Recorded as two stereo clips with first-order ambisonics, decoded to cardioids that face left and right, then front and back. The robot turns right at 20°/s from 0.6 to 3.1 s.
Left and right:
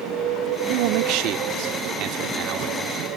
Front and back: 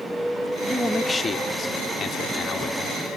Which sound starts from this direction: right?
A man speaking, at 0.7 s.